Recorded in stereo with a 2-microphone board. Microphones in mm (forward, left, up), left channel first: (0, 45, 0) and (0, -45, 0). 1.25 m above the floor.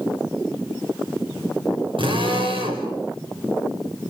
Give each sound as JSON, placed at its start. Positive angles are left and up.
{"t": 2.0, "sound": "a drill", "side_deg": -70, "distance_m": 5.0}